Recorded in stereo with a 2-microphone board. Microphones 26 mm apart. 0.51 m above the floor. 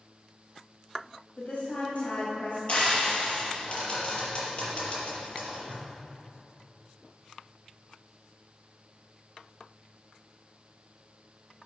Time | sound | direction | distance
1.4 | a woman speaking | 50° left (ahead or behind) | 2.5 m
2.7 | frying | 45° left (ahead or behind) | 4.5 m